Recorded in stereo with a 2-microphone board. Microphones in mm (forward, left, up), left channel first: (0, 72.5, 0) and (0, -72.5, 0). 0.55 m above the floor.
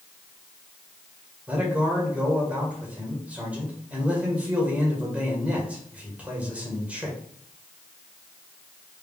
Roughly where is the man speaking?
Centre.